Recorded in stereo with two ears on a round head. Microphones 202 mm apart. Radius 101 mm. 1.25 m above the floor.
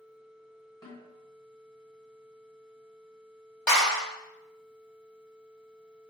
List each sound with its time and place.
0.8 s a snare drum: 20° left (ahead or behind), 1.2 m
3.7 s a clap: 5° left (ahead or behind), 1.8 m